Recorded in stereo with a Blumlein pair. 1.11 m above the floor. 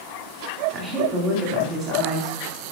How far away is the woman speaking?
About 3 m.